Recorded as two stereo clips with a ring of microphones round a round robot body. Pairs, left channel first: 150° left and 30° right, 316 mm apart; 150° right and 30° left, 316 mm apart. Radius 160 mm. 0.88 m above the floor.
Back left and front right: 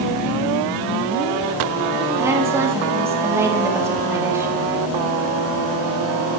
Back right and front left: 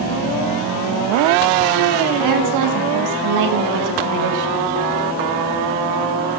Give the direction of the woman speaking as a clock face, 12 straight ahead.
10 o'clock.